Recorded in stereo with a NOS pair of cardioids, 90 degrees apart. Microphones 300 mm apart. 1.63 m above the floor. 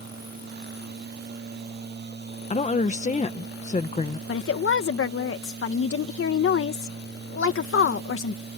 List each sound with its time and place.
0.0 s a machine running: 35° right
2.5 s a woman speaking: 25° left
4.3 s a woman speaking: 45° left